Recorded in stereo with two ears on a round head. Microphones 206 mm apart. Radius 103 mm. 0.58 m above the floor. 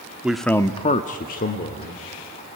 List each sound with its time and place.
0.2 s a man speaking: 5° right (ahead or behind), 1.0 m; by 2.0 s 35° left (ahead or behind), 2.0 m